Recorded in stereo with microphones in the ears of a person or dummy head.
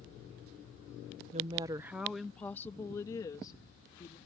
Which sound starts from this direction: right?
A woman speaking, at 1.3 s.